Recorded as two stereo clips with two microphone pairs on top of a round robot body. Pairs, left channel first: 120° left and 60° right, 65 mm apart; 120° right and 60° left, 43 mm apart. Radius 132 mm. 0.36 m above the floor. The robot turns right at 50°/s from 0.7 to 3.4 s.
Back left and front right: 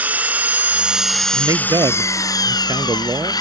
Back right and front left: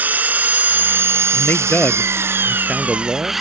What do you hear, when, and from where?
0.0 s an engine running: 10° left; by 3.4 s 145° left
1.3 s a man speaking: 95° right; by 3.3 s 5° left